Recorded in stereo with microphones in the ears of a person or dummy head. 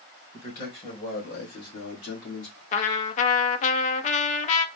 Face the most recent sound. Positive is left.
turn(degrees=45)  # may be behind; listen again after turning